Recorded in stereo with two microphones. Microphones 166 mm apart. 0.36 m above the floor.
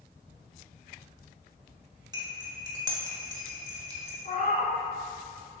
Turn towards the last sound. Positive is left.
turn(degrees=55)  # may be behind; listen again after turning